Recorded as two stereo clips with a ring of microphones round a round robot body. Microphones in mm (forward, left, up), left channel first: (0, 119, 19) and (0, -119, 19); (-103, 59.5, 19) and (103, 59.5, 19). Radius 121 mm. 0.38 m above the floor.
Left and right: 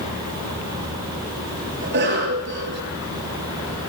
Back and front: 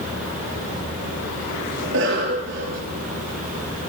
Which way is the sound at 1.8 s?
45° right.